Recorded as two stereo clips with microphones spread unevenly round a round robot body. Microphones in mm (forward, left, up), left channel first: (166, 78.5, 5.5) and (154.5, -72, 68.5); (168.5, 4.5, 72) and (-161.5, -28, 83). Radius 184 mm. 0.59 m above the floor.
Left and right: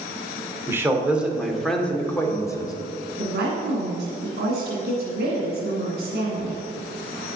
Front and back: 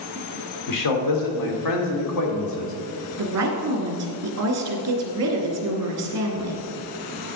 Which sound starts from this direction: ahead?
A man speaking, at 0.7 s.